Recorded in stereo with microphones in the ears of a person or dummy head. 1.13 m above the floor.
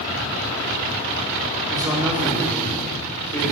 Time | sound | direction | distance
1.7 | a man speaking | 20° right (ahead or behind) | 2 m